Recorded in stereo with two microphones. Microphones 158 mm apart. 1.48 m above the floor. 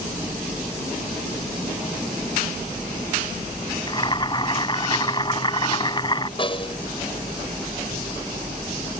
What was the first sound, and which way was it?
Boiling, 30° left (ahead or behind).